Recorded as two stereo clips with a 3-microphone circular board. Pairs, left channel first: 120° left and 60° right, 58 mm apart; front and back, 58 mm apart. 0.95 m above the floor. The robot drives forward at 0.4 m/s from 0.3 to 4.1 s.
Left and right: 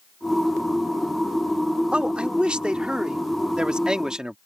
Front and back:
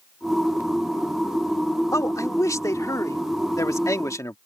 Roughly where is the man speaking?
Ahead.